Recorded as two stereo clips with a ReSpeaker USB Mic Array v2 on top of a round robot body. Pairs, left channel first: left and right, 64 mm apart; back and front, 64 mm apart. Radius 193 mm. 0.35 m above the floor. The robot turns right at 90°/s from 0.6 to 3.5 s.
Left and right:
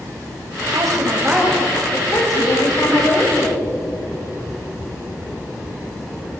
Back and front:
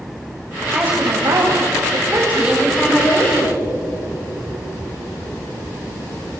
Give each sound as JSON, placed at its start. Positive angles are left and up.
{"t": 0.7, "sound": "a woman speaking", "azimuth_deg": -80, "distance_m": 3.0}